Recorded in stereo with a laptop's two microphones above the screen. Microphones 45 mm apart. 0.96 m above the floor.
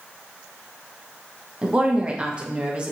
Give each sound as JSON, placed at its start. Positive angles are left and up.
{"t": 1.6, "sound": "a woman speaking", "side_deg": -25, "distance_m": 0.9}